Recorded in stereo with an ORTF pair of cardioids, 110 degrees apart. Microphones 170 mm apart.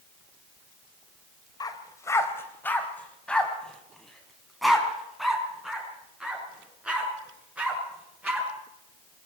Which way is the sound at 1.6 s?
25° left.